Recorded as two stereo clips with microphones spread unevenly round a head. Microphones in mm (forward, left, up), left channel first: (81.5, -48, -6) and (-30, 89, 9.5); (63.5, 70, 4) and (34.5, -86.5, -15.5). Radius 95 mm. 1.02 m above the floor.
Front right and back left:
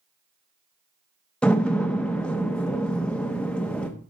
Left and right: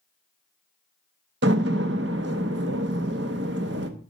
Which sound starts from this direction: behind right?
A door slam, at 1.4 s.